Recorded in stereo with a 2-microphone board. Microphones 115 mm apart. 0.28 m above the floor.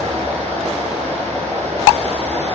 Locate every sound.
0.0 s running water: 65° right (ahead or behind), 3.5 m